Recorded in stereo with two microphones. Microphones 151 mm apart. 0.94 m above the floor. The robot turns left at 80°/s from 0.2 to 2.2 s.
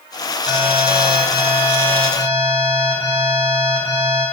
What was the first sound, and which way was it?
An alarm, 125° left.